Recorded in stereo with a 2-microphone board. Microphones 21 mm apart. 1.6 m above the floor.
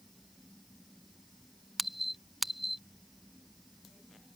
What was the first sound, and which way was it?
A squeak, centre (ahead or behind).